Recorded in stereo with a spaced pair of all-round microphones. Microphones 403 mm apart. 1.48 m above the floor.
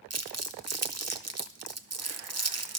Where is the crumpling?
40° right (ahead or behind), 0.7 m.